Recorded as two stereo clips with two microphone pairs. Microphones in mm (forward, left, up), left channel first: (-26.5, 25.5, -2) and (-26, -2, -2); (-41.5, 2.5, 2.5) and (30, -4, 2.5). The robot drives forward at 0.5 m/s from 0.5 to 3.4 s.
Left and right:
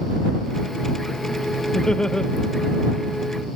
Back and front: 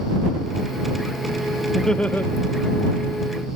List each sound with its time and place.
1.8 s laughter: 90° left, 0.6 m; by 2.3 s 135° left, 0.6 m